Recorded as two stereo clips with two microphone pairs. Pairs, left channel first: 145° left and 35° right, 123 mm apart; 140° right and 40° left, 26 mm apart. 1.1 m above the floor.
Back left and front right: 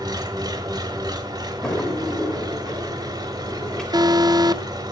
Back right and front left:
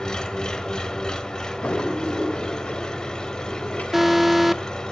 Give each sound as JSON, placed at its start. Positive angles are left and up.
{"t": 0.0, "sound": "an engine running", "azimuth_deg": -85, "distance_m": 1.4}
{"t": 1.6, "sound": "a drawer", "azimuth_deg": -130, "distance_m": 2.5}
{"t": 3.9, "sound": "an alarm", "azimuth_deg": -45, "distance_m": 0.6}